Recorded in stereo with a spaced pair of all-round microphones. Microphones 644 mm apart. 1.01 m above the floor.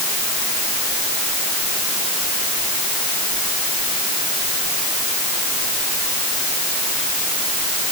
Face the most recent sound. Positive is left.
No sound to turn to.